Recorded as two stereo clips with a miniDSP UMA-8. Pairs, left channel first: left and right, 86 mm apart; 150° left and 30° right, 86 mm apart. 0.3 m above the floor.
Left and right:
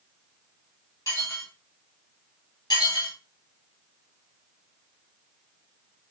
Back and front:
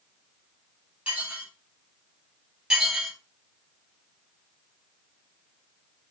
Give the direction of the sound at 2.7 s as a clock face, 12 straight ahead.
10 o'clock.